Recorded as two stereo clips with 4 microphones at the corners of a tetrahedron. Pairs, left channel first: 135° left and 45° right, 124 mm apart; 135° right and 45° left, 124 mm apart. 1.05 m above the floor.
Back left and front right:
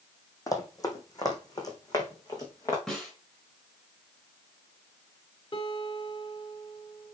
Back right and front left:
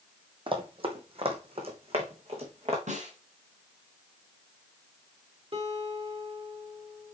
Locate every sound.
0.5 s running footsteps: 80° left, 1.8 m
2.9 s a snare drum: 50° left, 3.5 m
5.5 s a guitar: 85° left, 1.9 m